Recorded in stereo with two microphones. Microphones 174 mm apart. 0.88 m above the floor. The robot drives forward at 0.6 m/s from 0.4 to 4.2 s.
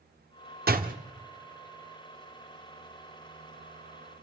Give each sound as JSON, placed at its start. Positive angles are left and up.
{"t": 0.7, "sound": "a door slam", "side_deg": -55, "distance_m": 1.1}